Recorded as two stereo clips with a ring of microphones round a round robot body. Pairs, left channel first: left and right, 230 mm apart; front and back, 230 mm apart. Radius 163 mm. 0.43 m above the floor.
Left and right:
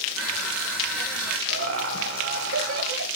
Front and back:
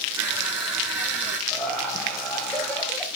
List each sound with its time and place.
0.2 s crushing: 95° right, 5.5 m
1.5 s laughter: 90° right, 2.5 m